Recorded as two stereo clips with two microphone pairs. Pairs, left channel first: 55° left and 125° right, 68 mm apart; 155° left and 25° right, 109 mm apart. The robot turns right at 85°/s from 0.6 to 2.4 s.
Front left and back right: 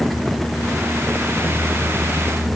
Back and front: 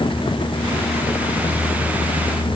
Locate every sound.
Only background noise.